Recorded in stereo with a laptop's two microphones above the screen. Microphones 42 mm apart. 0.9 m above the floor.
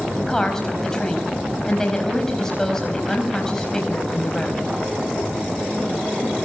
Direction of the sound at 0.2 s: 15° left (ahead or behind).